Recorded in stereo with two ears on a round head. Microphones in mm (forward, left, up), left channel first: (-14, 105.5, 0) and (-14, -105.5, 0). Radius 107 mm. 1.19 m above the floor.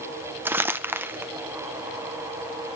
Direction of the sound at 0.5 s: 10° right (ahead or behind).